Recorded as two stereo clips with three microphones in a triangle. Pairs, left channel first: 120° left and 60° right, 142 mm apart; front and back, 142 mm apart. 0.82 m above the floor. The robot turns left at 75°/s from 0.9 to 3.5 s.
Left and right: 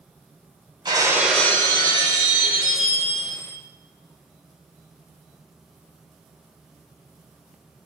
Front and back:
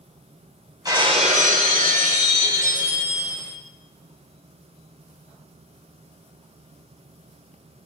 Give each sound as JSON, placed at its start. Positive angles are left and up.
{"t": 0.8, "sound": "breaking glass", "azimuth_deg": -120, "distance_m": 3.5}